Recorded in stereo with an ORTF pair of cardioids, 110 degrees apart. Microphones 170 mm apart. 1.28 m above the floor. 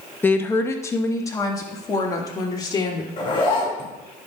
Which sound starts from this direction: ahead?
A woman speaking, at 0.2 s.